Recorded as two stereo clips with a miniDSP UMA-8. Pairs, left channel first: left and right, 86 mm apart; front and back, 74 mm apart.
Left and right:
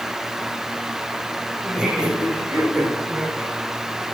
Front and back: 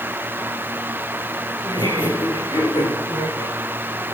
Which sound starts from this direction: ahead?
Laughter, at 1.6 s.